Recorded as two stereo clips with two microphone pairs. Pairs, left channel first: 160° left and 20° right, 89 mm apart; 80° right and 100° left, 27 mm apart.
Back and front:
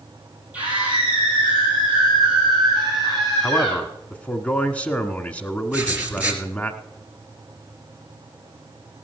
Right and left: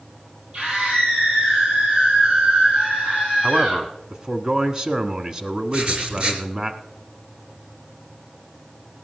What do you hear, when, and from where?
0.5 s a scream: 55° left, 4.5 m; by 3.8 s 70° left, 7.5 m
3.4 s a man speaking: 105° left, 1.3 m
5.7 s writing: 50° left, 2.5 m